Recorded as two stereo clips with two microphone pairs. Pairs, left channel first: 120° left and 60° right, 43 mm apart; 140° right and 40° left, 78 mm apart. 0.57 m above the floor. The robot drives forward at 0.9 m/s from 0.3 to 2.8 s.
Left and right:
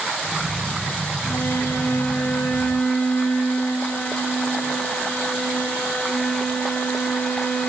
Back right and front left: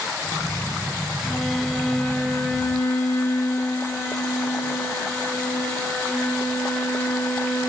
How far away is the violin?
About 1.7 m.